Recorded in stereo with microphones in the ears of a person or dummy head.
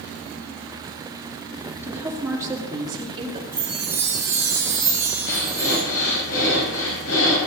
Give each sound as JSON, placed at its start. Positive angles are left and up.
{"t": 1.8, "sound": "a woman speaking", "side_deg": -5, "distance_m": 3.0}
{"t": 3.5, "sound": "a chime", "side_deg": -10, "distance_m": 3.5}
{"t": 5.3, "sound": "breathing", "side_deg": 90, "distance_m": 5.5}